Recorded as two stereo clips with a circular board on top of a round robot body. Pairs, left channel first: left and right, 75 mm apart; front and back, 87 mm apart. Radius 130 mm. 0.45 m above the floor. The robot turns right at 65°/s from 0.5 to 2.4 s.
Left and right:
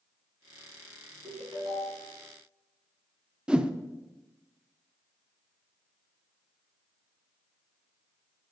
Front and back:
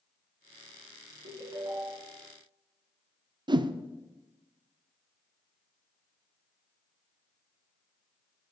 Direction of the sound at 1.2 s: 155° right.